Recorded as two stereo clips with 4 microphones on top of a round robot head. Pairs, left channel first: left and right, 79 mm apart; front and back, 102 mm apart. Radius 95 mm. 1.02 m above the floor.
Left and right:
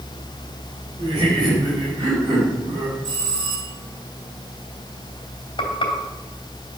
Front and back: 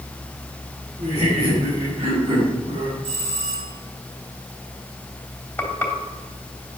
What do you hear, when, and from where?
1.0 s laughter: 140° right, 5.5 m; by 2.9 s 135° right, 4 m
3.0 s a bell: 150° right, 5.5 m
5.6 s frying: 70° left, 3 m